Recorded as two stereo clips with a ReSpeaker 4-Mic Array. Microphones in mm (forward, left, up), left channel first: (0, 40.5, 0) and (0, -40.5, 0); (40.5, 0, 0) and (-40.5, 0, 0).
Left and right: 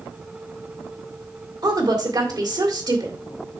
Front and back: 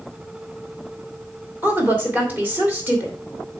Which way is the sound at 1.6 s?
115° right.